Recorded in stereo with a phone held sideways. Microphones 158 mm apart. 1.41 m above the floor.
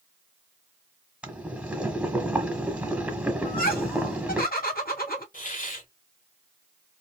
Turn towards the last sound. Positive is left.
turn(degrees=60)  # may be behind; listen again after turning